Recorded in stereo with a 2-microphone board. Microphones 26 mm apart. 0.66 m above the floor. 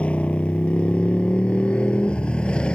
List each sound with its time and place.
0.0 s a motorcycle: 60° left (ahead or behind); by 2.8 s 45° left (ahead or behind)